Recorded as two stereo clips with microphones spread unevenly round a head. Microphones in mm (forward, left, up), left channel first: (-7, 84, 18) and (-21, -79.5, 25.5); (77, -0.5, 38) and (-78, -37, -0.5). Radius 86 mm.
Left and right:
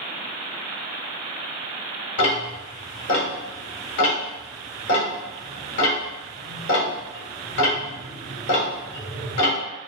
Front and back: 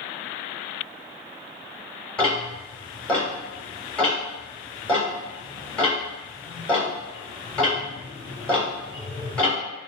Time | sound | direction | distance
2.2 | ticking | 100° left | 2 m